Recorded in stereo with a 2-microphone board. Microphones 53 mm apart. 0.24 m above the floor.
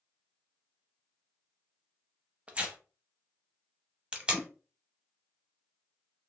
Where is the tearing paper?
25° right (ahead or behind), 0.6 m.